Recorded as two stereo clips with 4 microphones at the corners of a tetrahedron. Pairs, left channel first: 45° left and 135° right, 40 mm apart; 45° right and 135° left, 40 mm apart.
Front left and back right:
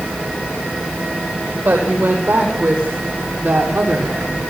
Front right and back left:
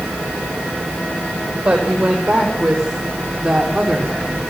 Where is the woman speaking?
150° right, 8 m; by 4.4 s 140° right, 7 m.